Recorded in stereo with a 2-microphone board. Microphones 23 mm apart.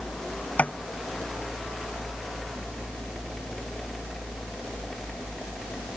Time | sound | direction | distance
0.6 | tapping | 80° left | ?